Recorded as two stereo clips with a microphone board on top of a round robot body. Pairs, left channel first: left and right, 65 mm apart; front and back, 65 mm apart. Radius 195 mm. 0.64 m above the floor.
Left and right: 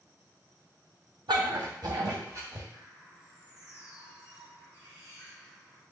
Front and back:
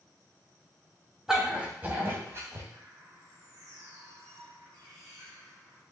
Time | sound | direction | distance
1.3 | a dog barking | 95° right | 2.5 m
2.7 | a bird | 155° right | 6 m